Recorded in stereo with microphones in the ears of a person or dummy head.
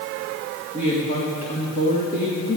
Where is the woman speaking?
35° left (ahead or behind), 2.5 m.